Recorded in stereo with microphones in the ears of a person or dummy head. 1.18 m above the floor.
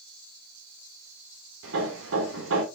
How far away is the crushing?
No crushing in this recording.